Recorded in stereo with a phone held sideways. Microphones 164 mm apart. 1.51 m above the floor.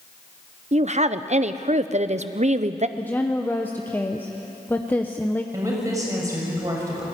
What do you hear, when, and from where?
0.7 s a woman speaking: 45° right (ahead or behind), 0.8 m
3.0 s a woman speaking: 10° left (ahead or behind), 0.9 m
5.5 s a woman speaking: 20° right (ahead or behind), 7 m